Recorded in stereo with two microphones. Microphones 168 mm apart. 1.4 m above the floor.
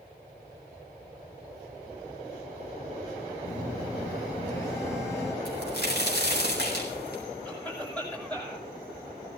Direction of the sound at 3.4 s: 15° left (ahead or behind).